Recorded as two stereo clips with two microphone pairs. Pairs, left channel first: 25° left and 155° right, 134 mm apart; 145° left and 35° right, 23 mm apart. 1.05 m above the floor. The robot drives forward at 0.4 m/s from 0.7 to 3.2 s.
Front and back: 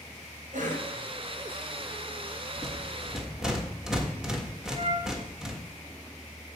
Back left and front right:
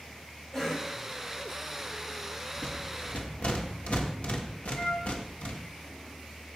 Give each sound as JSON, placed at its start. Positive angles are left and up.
{"t": 0.5, "sound": "a cough", "azimuth_deg": -145, "distance_m": 5.5}
{"t": 2.6, "sound": "a rattle", "azimuth_deg": 110, "distance_m": 1.3}
{"t": 4.7, "sound": "a flute", "azimuth_deg": 165, "distance_m": 2.5}